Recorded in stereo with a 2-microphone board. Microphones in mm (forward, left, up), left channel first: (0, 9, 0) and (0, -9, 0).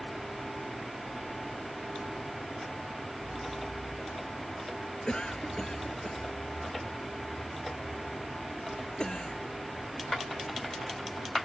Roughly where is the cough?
Left.